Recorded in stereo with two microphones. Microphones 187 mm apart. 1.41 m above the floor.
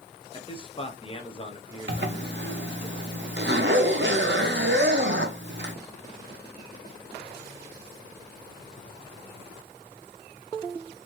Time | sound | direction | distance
0.3 | a man speaking | 25° left (ahead or behind) | 0.8 m
1.9 | a zipper | 75° right (ahead or behind) | 0.7 m